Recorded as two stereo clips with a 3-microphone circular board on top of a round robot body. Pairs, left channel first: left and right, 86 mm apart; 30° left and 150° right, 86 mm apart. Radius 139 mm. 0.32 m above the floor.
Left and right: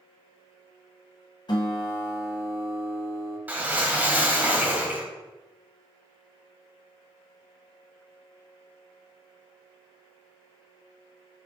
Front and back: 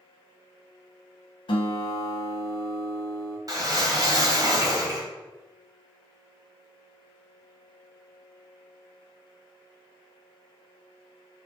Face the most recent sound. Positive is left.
turn(degrees=-150)